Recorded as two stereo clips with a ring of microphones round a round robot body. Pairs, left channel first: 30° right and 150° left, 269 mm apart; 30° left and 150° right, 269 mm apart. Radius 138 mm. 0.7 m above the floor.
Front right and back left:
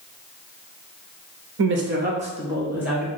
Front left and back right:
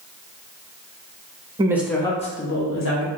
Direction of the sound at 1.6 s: 145° left.